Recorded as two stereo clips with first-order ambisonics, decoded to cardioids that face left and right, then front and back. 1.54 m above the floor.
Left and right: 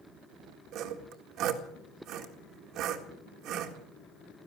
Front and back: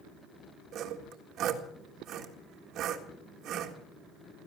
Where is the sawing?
130° right, 1.8 m.